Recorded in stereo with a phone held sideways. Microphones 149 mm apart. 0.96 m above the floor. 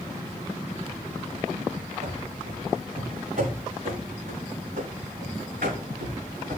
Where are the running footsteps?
50° right (ahead or behind), 5 m; by 6.6 s 65° right (ahead or behind), 4 m.